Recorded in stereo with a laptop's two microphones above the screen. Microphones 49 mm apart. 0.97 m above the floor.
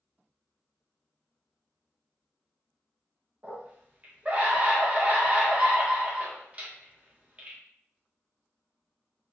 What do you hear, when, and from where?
3.4 s a scream: 30° right (ahead or behind), 0.8 m